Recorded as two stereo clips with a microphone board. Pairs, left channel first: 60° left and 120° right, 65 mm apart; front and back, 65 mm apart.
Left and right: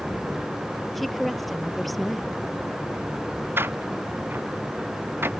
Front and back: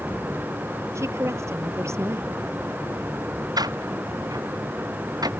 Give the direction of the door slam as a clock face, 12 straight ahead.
6 o'clock.